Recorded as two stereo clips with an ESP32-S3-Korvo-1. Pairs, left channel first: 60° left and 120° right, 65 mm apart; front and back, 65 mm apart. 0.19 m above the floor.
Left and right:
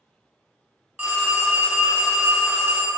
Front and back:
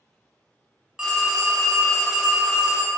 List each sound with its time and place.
1.0 s a phone ringing: 120° right, 0.6 m